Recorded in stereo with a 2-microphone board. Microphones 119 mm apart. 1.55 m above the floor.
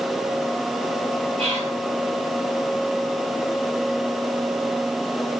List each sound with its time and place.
1.4 s whispering: 50° right (ahead or behind), 5.5 m